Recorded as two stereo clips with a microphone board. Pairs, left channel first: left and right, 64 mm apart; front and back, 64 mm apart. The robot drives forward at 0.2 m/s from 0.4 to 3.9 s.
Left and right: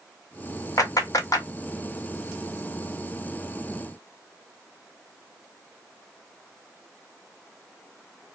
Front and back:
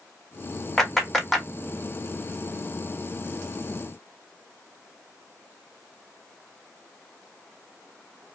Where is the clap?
85° left, 1.1 m; by 1.5 s 95° left, 1.1 m.